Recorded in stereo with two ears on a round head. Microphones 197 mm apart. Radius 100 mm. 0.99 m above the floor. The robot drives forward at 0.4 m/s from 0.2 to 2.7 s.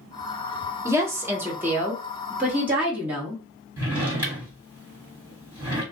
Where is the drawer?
10° right (ahead or behind), 1.6 m.